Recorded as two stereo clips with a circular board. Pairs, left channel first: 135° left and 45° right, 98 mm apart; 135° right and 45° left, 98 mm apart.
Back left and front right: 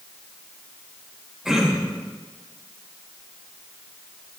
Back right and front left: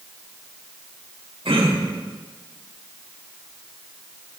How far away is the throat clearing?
About 1.8 m.